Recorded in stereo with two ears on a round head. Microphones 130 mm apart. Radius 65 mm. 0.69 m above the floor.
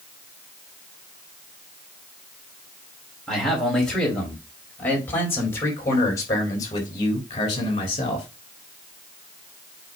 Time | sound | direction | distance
3.3 | a man speaking | centre (ahead or behind) | 4 m